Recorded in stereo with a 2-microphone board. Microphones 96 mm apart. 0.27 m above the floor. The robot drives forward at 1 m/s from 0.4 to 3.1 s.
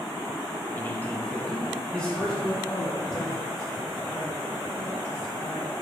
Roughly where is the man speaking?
Left.